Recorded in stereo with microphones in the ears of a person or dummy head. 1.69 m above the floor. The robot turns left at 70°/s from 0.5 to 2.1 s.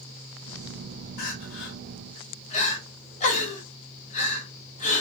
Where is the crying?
55° left (ahead or behind), 0.7 m; by 5.0 s 40° left (ahead or behind), 0.7 m.